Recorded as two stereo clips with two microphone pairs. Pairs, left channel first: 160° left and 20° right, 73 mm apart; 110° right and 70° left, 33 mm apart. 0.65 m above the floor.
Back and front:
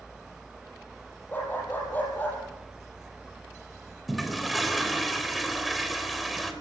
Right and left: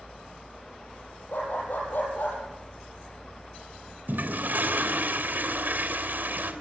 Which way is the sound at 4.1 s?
70° left.